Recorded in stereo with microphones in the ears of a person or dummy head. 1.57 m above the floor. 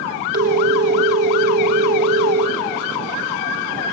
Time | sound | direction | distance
0.3 | a phone ringing | 50° right (ahead or behind) | 1.3 m